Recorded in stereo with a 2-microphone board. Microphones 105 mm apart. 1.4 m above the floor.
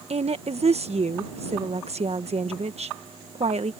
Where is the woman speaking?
80° right.